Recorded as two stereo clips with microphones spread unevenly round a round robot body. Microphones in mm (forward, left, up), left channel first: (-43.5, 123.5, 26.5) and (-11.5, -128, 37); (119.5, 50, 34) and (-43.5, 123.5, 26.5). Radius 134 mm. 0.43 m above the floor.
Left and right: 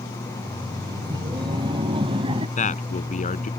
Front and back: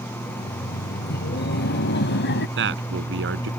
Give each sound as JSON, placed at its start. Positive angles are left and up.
{"t": 0.3, "sound": "laughter", "azimuth_deg": -10}
{"t": 2.6, "sound": "a man speaking", "azimuth_deg": 160}